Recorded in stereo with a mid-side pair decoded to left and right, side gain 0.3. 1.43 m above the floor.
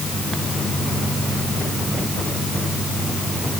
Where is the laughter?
I don't hear laughter.